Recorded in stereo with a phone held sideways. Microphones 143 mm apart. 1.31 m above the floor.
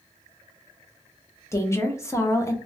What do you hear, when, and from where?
1.5 s a woman speaking: 20° left (ahead or behind), 0.7 m